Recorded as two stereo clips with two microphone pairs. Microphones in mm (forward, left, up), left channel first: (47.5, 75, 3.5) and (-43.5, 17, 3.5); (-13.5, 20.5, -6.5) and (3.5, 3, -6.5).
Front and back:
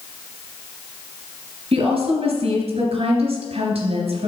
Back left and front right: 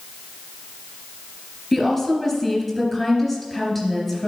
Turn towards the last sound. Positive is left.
turn(degrees=-130)